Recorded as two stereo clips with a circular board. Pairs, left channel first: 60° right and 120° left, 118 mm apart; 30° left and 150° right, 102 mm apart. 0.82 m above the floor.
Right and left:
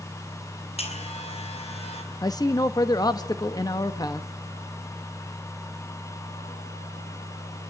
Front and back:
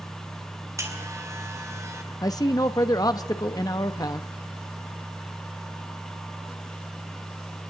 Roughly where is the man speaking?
Ahead.